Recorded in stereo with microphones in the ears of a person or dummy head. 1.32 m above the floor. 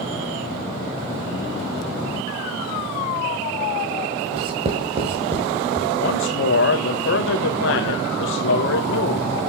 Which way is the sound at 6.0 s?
60° left (ahead or behind).